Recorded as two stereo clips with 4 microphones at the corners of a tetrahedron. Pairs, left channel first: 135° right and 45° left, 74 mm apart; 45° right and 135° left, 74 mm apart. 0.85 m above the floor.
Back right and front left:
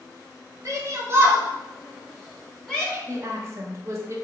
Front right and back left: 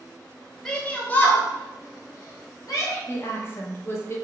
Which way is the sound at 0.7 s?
35° left.